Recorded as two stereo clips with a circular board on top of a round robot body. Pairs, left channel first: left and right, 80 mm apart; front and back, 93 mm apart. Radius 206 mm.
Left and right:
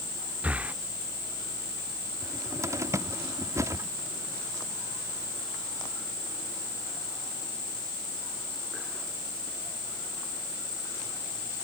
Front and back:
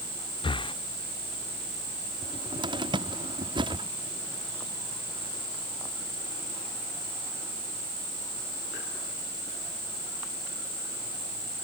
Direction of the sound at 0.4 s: 20° right.